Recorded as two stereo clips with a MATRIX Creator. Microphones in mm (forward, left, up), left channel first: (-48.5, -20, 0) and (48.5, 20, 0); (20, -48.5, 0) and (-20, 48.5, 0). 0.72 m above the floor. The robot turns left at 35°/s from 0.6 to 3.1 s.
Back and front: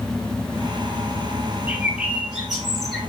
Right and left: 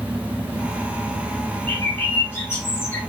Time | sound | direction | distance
1.7 | a bird | 30° right | 0.8 m